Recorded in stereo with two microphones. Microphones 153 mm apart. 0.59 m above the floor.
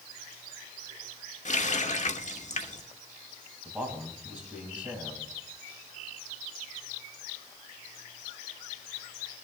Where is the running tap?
50° left (ahead or behind), 1.0 m.